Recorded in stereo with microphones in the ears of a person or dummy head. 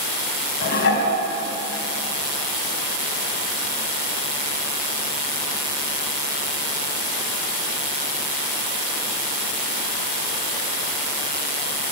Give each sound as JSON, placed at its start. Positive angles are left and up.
{"t": 0.6, "sound": "dishes clattering", "side_deg": 55, "distance_m": 5.0}